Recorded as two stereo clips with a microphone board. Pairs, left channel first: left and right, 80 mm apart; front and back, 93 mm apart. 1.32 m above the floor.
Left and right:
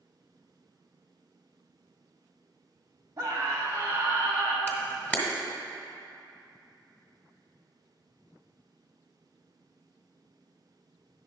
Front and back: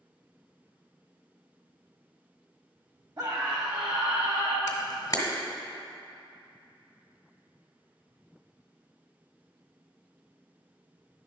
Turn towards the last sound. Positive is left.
turn(degrees=30)